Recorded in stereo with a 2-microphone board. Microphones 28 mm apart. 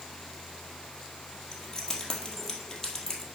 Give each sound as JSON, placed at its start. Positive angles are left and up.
{"t": 1.5, "sound": "keys jangling", "side_deg": 20, "distance_m": 2.0}